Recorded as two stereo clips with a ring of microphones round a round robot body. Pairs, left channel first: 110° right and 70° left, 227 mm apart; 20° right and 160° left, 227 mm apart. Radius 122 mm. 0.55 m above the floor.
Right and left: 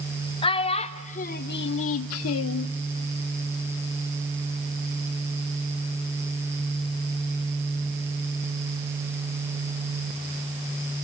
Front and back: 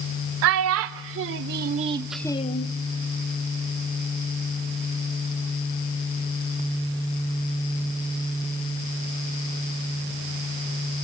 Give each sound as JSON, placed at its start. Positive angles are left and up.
{"t": 0.4, "sound": "a child speaking", "azimuth_deg": 180, "distance_m": 1.3}